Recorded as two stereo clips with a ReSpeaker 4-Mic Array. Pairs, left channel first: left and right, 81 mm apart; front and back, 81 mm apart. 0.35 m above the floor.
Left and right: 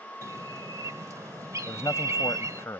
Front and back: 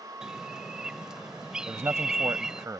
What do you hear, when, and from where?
0.2 s a bird: 105° right
1.7 s a man speaking: 135° left